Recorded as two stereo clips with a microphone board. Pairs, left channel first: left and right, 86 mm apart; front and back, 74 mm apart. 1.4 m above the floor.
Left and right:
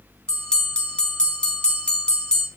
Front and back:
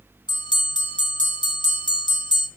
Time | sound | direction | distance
0.3 | a bell | 10° left | 2.5 m